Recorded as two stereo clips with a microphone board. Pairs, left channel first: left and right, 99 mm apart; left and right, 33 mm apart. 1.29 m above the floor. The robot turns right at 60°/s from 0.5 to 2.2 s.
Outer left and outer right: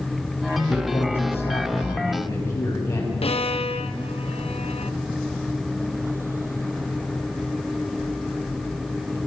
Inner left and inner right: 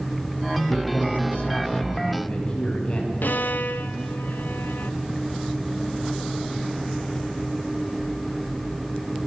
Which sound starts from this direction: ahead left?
A man speaking, at 0.7 s.